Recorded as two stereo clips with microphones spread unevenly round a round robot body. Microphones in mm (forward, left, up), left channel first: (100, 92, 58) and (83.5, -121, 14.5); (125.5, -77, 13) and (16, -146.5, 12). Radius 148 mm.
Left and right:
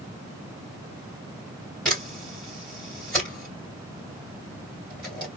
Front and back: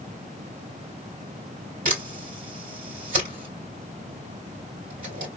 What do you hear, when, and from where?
1.9 s a camera shutter: straight behind, 3 m